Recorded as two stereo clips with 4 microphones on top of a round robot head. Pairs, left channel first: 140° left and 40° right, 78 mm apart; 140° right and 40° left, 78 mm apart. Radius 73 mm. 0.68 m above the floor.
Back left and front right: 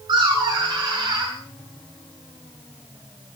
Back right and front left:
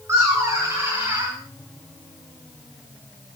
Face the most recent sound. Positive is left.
turn(degrees=-20)